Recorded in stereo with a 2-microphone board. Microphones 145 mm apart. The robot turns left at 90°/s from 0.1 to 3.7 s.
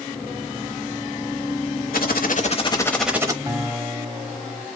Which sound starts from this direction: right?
A guitar, at 3.5 s.